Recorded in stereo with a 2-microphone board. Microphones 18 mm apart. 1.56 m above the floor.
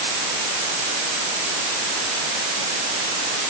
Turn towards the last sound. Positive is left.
No sound to turn to.